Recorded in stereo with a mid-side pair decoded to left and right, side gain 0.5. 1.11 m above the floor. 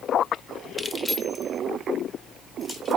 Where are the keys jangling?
10° left, 0.7 m; by 3.0 s 30° left, 2.5 m.